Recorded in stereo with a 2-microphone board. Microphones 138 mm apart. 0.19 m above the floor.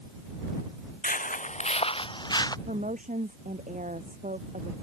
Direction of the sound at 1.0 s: 80° left.